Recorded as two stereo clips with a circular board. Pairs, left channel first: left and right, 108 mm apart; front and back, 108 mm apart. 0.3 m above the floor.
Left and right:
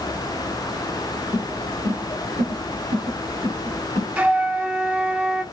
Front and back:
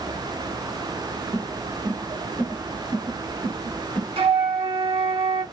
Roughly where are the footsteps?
Behind right.